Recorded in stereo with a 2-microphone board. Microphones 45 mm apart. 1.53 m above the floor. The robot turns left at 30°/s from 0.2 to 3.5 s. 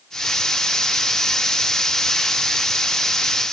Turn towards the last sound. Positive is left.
No sound to turn to.